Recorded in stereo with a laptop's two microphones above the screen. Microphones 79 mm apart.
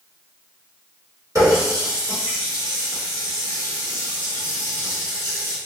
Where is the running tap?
45° right (ahead or behind), 1.4 m.